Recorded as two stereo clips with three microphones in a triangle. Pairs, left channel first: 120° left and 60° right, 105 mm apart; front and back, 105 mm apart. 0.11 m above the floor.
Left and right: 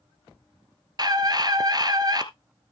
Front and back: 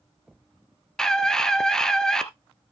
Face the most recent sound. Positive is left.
turn(degrees=-80)